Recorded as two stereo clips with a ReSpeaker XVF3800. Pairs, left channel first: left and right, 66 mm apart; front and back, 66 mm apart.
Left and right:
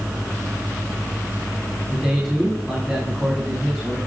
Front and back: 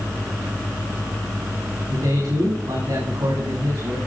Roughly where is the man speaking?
Behind.